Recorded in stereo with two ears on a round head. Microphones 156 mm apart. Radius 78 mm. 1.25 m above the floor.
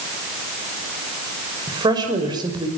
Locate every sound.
1.7 s a woman speaking: 25° right (ahead or behind), 5.5 m